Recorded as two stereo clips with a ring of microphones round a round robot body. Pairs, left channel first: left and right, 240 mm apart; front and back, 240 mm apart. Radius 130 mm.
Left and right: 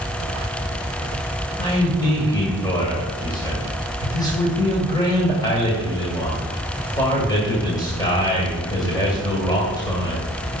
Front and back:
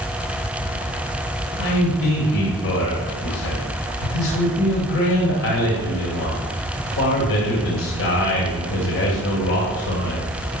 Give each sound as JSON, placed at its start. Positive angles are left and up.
{"t": 1.6, "sound": "a man speaking", "azimuth_deg": 20, "distance_m": 2.5}